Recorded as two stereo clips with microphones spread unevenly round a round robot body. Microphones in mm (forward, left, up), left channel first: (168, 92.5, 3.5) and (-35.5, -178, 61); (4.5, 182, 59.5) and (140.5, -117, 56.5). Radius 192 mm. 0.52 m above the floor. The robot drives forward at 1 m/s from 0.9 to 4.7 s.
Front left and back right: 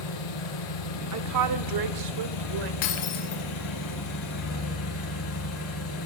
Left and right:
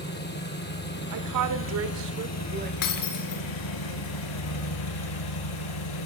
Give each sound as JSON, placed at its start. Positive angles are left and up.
{"t": 0.0, "sound": "an engine running", "azimuth_deg": 55, "distance_m": 4.5}
{"t": 1.1, "sound": "a woman speaking", "azimuth_deg": -80, "distance_m": 1.7}
{"t": 2.8, "sound": "breaking glass", "azimuth_deg": 90, "distance_m": 2.5}